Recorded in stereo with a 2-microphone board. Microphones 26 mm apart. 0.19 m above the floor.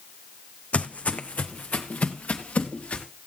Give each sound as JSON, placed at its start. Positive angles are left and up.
{"t": 0.7, "sound": "footsteps", "side_deg": 65, "distance_m": 0.7}